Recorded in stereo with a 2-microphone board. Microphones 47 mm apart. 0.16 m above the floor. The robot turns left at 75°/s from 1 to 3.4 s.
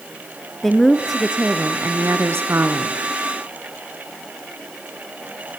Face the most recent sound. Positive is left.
turn(degrees=-175)